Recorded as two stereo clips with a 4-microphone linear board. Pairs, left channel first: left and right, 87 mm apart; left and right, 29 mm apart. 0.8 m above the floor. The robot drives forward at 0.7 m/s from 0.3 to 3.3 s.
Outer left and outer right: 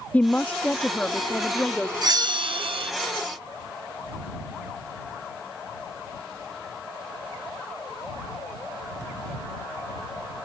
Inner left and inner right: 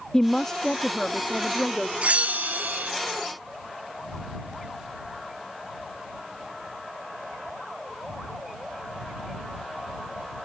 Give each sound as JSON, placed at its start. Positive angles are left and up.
{"t": 0.1, "sound": "a woman speaking", "side_deg": 20}
{"t": 2.0, "sound": "a bell", "side_deg": -45}